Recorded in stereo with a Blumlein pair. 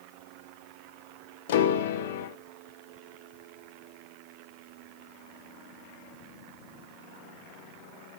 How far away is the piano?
About 0.9 m.